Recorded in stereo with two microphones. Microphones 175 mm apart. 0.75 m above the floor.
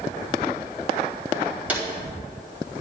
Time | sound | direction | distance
1.7 | a drawer | 10° right (ahead or behind) | 2 m